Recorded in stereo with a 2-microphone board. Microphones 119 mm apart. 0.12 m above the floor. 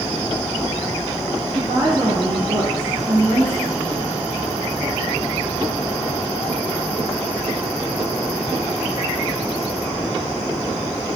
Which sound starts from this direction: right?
A woman speaking, at 1.5 s.